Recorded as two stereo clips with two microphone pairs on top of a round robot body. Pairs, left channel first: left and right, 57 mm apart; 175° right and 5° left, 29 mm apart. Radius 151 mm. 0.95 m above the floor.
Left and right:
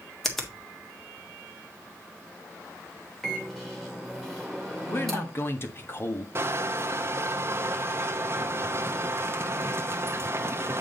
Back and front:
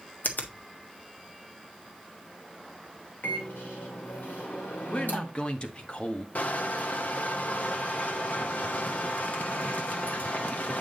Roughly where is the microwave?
Behind.